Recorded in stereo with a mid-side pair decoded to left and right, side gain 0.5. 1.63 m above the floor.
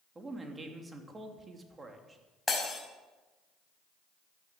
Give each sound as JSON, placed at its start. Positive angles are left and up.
{"t": 0.1, "sound": "a man speaking", "azimuth_deg": -25, "distance_m": 3.0}
{"t": 2.5, "sound": "breaking glass", "azimuth_deg": 25, "distance_m": 5.5}